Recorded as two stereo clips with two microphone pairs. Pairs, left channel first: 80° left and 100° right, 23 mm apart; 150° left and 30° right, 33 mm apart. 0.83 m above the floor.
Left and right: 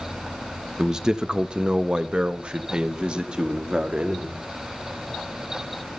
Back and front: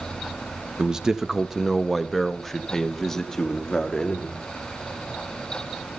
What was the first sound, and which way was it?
A man speaking, 65° right.